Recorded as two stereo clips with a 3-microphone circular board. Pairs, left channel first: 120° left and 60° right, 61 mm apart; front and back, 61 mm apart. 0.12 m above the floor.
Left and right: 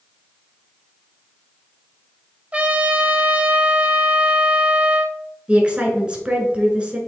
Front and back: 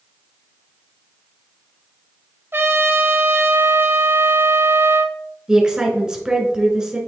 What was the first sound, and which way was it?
A trumpet, 125° right.